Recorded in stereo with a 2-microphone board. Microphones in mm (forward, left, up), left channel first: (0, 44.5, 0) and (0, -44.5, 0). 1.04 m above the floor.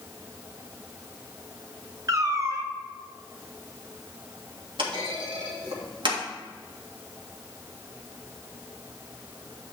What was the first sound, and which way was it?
A cat meowing, 35° right (ahead or behind).